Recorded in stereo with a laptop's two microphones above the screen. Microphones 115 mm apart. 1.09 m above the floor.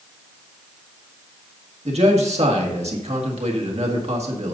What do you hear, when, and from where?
1.9 s a man speaking: 70° right (ahead or behind), 1.8 m